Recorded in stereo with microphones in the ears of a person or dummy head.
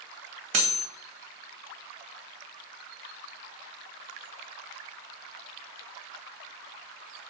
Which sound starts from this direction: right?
Cutlery clinking, at 0.5 s.